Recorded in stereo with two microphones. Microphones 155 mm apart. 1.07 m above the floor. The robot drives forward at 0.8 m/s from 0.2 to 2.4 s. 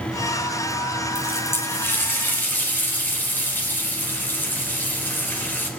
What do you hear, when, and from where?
1.1 s a running tap: 15° left (ahead or behind), 3.5 m